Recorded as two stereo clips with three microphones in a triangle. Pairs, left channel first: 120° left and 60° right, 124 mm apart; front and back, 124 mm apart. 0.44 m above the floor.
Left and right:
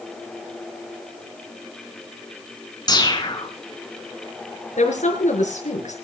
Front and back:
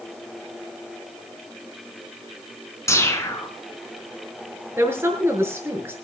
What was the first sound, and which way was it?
A whoosh, 65° left.